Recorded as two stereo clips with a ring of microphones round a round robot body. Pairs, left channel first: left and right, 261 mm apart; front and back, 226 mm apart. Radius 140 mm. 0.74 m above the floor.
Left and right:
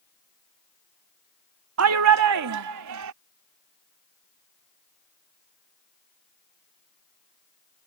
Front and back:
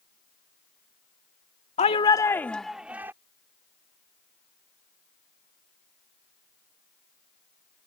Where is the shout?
60° right; by 3.1 s 100° right.